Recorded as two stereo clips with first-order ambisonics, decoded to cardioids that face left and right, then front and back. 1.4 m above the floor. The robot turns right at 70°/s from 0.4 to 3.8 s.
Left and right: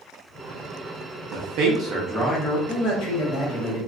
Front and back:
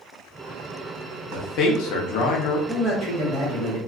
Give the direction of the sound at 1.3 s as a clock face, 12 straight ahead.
2 o'clock.